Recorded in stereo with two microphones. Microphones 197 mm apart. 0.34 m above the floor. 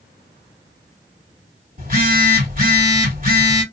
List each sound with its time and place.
1.8 s a phone buzzing: 45° right (ahead or behind), 2 m